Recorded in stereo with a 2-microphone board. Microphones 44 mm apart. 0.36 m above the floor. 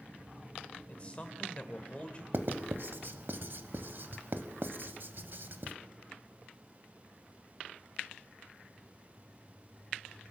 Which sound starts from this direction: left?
A man speaking, at 0.9 s.